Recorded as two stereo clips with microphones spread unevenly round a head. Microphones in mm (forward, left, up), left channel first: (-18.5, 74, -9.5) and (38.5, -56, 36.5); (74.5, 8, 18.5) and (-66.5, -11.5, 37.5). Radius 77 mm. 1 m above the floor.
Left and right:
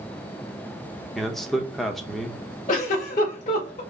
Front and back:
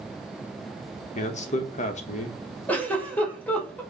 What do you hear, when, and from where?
1.1 s a man speaking: 35° left, 0.8 m
2.7 s a giggle: 85° left, 2.5 m